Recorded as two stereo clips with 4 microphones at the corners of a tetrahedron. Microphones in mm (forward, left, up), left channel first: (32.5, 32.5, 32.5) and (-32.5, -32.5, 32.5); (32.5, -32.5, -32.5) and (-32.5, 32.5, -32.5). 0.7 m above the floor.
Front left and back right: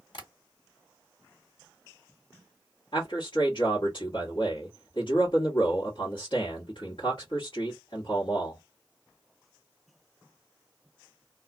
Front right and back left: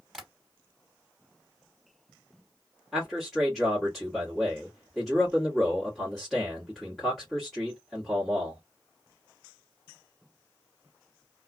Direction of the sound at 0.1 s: 45° left.